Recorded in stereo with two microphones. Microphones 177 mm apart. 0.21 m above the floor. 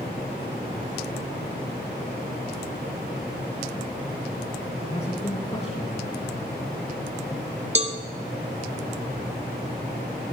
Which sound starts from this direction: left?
A man speaking, at 4.8 s.